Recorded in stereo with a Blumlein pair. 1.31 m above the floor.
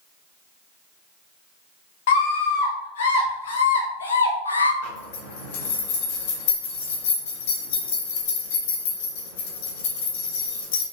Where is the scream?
55° left, 3 m; by 4.7 s 80° left, 1.2 m.